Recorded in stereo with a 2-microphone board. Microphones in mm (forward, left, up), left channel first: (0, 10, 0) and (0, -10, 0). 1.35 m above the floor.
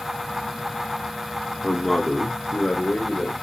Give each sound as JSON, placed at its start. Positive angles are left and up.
{"t": 1.6, "sound": "a man speaking", "side_deg": 10, "distance_m": 0.6}